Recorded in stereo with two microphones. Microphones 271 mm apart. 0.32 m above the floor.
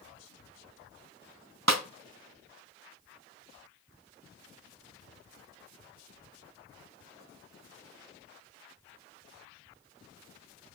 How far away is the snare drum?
About 1.0 m.